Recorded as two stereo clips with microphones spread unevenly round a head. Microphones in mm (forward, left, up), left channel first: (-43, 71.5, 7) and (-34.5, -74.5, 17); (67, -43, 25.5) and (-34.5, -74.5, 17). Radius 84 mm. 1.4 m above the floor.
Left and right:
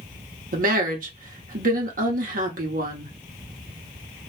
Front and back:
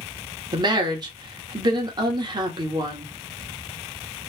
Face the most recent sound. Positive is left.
turn(degrees=-115)